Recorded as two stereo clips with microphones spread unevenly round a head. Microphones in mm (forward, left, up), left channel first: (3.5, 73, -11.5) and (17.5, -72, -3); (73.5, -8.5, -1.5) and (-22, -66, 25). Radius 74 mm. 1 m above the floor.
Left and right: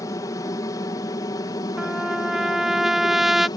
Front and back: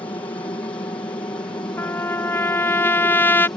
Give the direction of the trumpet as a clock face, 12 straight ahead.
12 o'clock.